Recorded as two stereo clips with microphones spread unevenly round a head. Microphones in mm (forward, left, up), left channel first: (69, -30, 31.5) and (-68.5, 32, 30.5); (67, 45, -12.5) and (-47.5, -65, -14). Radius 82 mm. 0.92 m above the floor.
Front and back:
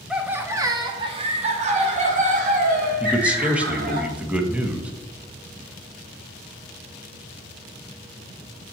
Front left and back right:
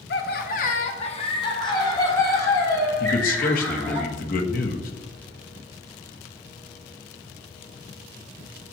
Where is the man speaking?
75° left, 1.1 m.